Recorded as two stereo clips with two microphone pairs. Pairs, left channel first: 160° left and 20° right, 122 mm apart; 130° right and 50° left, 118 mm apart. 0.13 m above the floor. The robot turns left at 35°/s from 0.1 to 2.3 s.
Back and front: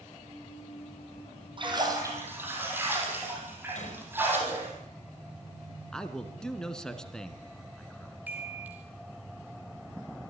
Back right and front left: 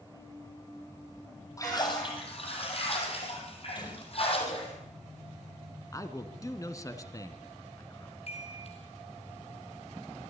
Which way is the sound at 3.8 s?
Straight behind.